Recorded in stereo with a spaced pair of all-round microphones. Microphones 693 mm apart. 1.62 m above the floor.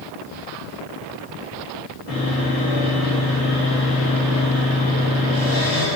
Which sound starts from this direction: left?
Sawing, at 2.1 s.